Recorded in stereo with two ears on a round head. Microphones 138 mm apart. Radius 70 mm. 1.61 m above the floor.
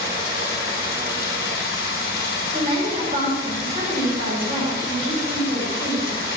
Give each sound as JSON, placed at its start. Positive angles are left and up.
{"t": 0.0, "sound": "running water", "side_deg": 70, "distance_m": 3.5}
{"t": 2.5, "sound": "a woman speaking", "side_deg": -35, "distance_m": 4.5}